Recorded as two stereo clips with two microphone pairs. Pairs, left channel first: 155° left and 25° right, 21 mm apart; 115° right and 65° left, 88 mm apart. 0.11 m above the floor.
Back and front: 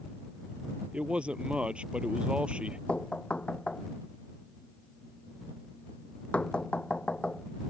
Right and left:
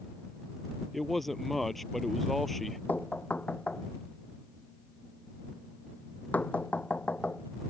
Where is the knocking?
175° left.